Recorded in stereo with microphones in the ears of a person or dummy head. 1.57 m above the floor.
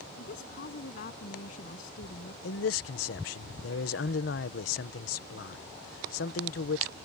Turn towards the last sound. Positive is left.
turn(degrees=65)  # may be behind; listen again after turning